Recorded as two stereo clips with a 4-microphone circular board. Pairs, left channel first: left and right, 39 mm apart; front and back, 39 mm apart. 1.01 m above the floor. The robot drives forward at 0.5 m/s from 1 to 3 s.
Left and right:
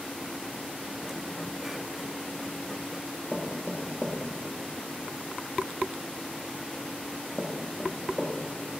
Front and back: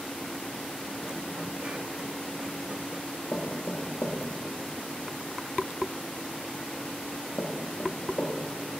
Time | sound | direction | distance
3.3 | knocking | straight ahead | 1.2 m